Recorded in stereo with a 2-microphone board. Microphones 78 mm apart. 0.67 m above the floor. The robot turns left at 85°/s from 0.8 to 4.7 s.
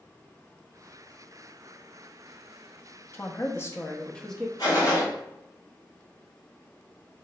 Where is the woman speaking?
110° left, 0.6 m; by 4.5 s 5° right, 0.6 m.